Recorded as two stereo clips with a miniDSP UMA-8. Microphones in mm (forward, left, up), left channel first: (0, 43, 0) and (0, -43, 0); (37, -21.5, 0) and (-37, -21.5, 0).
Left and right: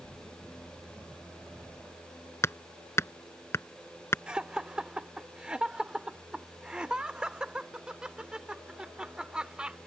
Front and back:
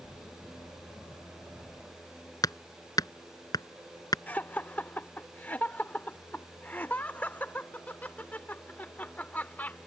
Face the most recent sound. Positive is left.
turn(degrees=-25)